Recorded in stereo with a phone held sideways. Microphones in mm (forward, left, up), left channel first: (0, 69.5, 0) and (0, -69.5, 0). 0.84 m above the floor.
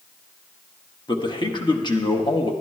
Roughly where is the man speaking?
Left.